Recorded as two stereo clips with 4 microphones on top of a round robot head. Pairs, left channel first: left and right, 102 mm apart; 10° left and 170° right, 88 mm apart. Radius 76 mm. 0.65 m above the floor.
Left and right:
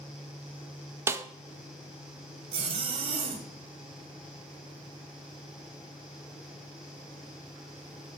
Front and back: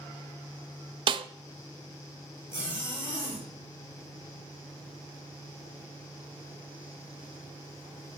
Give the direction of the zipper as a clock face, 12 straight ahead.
2 o'clock.